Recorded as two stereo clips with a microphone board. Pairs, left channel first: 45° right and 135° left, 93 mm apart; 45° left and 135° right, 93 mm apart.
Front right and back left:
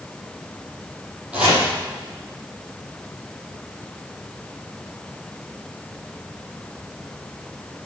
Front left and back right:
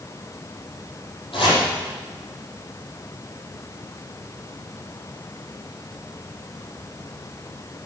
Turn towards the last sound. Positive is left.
turn(degrees=60)